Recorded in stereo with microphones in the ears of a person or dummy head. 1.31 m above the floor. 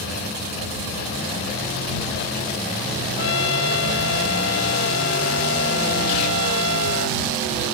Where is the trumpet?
65° left (ahead or behind).